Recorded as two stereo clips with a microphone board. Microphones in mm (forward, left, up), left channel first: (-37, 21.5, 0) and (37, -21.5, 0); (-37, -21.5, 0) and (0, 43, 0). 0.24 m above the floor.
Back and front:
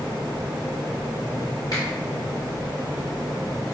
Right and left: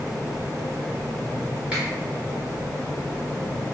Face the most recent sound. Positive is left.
turn(degrees=135)